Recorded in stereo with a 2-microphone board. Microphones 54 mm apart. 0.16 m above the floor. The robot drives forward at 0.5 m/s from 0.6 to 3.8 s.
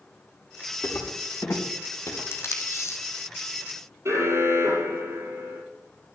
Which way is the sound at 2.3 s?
55° left (ahead or behind).